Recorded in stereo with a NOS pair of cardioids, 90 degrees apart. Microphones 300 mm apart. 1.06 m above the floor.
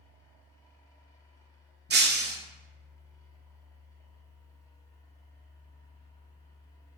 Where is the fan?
10° left, 1.1 m.